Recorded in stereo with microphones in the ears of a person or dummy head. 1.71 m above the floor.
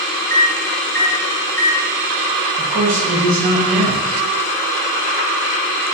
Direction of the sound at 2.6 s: 45° right (ahead or behind).